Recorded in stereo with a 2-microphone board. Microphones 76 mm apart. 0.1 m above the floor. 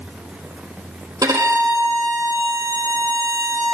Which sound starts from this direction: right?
A violin, at 1.2 s.